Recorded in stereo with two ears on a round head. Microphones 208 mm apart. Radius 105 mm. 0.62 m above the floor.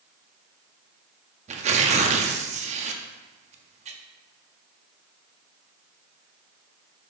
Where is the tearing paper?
30° right (ahead or behind), 0.6 m.